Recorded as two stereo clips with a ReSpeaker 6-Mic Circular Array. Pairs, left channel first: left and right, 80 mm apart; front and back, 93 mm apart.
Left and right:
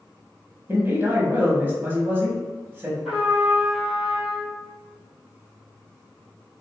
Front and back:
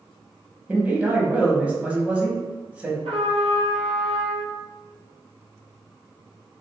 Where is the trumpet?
Straight behind, 1.2 m.